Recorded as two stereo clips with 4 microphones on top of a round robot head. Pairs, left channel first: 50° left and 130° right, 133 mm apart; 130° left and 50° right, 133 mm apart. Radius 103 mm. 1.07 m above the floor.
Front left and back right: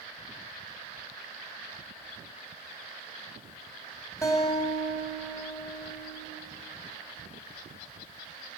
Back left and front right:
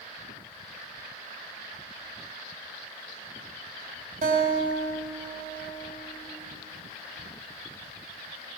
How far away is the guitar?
About 3.5 m.